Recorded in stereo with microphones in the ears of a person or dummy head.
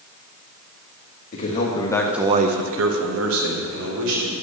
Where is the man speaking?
45° left (ahead or behind), 1.5 m; by 4.3 s 80° right, 3 m.